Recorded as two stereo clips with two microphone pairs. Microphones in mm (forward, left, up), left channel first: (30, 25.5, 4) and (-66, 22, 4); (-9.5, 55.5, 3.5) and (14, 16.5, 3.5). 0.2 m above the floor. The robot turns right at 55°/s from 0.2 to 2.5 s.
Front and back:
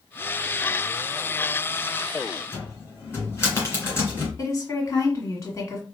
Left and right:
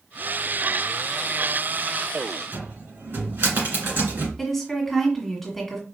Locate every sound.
2.5 s a cupboard door: 55° right, 2 m
4.4 s a woman speaking: 40° left, 1.5 m